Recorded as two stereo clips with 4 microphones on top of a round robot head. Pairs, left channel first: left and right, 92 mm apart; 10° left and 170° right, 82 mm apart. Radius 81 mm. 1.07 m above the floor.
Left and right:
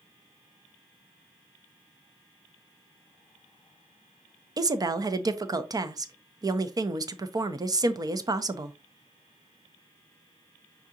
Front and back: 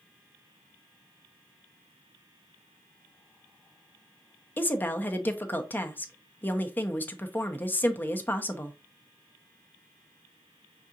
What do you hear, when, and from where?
4.6 s a woman speaking: 50° right, 0.7 m